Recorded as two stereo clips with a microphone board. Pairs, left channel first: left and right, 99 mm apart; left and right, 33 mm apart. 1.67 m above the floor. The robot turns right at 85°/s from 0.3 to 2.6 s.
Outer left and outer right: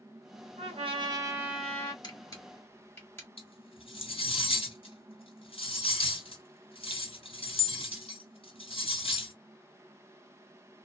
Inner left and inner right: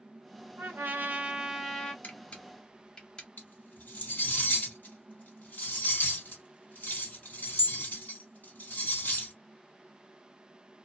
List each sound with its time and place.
0.6 s a trumpet: 90° right, 1.5 m; by 1.9 s 30° left, 1.5 m
2.0 s a camera shutter: 45° left (ahead or behind), 1.4 m; by 3.3 s 20° left (ahead or behind), 1.4 m
3.4 s cutlery clinking: 60° left (ahead or behind), 2 m